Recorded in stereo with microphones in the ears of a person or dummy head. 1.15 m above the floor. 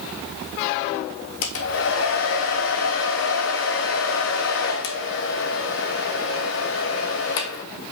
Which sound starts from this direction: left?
A hair dryer, at 1.4 s.